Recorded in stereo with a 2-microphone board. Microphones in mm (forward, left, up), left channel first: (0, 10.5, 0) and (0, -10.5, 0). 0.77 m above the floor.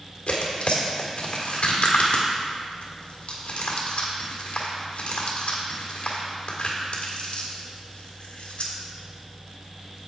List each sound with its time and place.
0.3 s tearing paper: 65° left (ahead or behind), 1.6 m